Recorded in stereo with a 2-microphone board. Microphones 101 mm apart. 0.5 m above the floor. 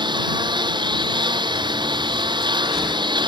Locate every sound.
0.0 s a lawn mower: 50° right (ahead or behind)